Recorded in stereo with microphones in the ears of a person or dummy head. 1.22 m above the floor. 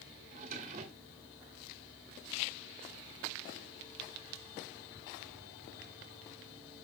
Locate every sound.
0.3 s a drawer: 40° right (ahead or behind), 1.7 m